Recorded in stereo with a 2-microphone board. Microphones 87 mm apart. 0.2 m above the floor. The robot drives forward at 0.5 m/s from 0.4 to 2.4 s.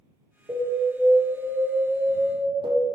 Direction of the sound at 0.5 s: 70° right (ahead or behind).